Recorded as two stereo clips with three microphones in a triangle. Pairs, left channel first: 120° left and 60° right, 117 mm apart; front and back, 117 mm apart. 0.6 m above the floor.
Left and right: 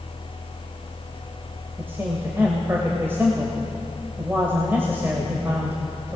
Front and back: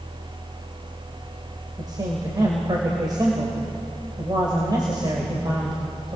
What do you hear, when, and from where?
1.8 s a man speaking: 130° right, 3 m